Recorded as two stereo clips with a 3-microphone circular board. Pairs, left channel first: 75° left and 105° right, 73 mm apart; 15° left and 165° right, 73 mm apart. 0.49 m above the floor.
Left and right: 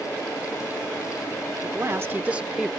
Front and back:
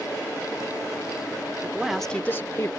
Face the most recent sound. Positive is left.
turn(degrees=-20)